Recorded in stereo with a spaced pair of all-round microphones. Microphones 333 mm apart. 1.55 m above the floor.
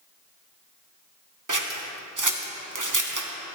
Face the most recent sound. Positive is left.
turn(degrees=-65)  # may be behind; listen again after turning